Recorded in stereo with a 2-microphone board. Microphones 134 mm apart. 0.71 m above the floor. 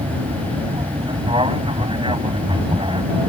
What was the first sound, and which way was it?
An aircraft, 40° right (ahead or behind).